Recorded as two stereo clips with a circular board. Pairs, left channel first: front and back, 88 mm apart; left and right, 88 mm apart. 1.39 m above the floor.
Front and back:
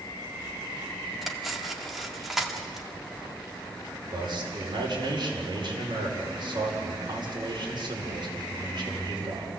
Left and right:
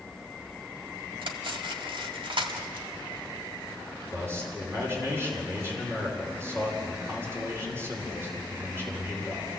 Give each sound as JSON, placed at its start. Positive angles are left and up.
{"t": 1.2, "sound": "cutlery clinking", "azimuth_deg": -95, "distance_m": 1.7}
{"t": 4.1, "sound": "a man speaking", "azimuth_deg": -150, "distance_m": 5.0}